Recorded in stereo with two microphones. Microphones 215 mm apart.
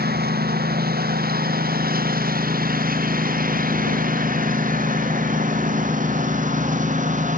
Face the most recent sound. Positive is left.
turn(degrees=-40)  # may be behind; listen again after turning